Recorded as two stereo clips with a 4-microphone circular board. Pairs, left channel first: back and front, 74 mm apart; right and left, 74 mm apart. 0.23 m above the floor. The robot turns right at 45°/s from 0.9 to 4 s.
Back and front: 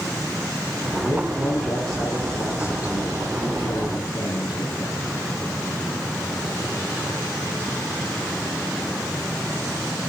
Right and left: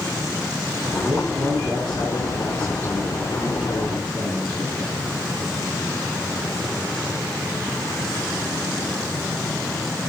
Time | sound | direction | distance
1.0 | a man speaking | 60° left | 9 m